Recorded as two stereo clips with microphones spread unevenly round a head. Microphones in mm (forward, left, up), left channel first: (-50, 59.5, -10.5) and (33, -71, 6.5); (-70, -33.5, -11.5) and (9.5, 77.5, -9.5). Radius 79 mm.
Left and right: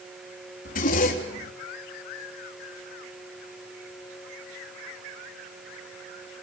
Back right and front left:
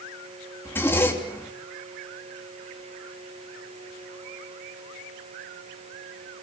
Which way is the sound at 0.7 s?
160° left.